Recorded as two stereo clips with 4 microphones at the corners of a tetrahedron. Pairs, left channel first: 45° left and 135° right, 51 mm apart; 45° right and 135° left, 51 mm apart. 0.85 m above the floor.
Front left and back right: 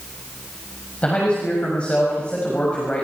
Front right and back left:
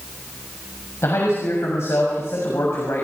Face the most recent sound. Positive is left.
turn(degrees=-20)